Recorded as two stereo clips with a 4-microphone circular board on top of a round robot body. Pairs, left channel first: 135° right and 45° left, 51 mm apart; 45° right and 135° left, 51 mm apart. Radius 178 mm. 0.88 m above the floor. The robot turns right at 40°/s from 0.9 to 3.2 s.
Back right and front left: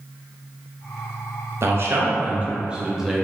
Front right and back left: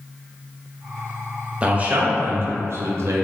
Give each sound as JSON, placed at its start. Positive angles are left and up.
{"t": 1.6, "sound": "a man speaking", "azimuth_deg": 70, "distance_m": 0.6}